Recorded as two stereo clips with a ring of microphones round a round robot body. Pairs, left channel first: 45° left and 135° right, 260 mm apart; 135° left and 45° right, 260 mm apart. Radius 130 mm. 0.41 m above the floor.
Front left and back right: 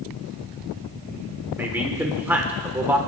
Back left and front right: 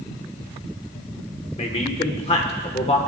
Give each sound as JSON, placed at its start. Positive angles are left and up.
{"t": 1.6, "sound": "a man speaking", "azimuth_deg": 155, "distance_m": 1.1}